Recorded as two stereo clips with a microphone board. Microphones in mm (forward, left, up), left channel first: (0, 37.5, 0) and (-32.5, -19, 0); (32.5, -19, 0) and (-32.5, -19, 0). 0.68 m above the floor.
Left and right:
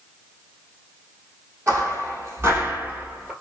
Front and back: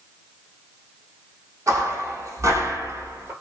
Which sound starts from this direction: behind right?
Footsteps, at 1.7 s.